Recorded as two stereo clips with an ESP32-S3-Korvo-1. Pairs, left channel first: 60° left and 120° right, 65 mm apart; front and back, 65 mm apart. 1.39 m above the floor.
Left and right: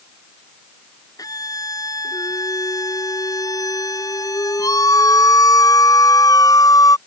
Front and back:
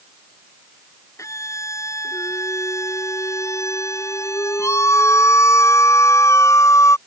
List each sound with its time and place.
1.2 s a scream: 40° left